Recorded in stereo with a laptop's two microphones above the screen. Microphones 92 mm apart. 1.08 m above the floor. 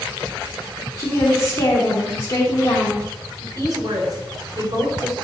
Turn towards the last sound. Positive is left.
turn(degrees=-45)  # may be behind; listen again after turning